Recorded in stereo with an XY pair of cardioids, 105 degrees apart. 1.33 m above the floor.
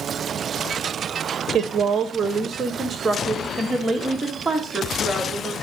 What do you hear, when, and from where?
1.5 s a woman speaking: 50° right, 1.0 m; by 5.5 s 5° right, 2.5 m